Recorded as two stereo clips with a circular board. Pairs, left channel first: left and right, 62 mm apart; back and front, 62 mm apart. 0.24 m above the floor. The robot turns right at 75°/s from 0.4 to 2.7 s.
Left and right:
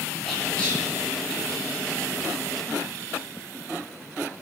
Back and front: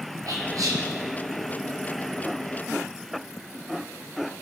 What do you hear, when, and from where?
0.3 s whispering: 5° left, 5 m; by 0.8 s 35° left, 5 m